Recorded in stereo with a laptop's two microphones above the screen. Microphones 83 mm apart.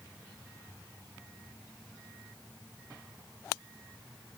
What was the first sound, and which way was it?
Only background noise.